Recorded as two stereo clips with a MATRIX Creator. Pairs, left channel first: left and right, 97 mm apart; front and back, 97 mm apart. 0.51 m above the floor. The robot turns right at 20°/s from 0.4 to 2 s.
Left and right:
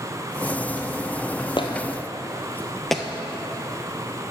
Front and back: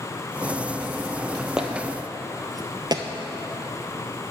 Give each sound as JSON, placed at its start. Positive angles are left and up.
{"t": 1.6, "sound": "footsteps", "azimuth_deg": 100, "distance_m": 0.9}